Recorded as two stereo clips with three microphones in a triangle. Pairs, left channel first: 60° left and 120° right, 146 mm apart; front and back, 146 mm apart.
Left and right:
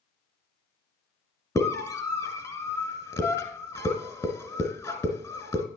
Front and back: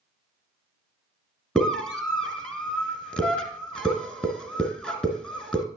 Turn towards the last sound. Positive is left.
turn(degrees=70)